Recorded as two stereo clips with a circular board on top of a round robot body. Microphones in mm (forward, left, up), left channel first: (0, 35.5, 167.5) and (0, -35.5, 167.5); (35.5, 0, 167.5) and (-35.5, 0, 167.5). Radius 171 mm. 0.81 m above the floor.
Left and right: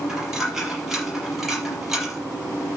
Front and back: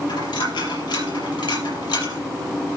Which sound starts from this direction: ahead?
A dropped coin, at 0.1 s.